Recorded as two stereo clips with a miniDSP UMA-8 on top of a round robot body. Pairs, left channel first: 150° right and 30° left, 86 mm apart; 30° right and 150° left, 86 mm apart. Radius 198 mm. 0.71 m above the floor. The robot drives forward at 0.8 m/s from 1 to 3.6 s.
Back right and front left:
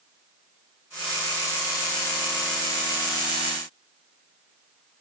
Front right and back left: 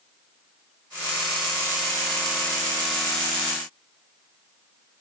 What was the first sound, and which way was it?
Only background noise.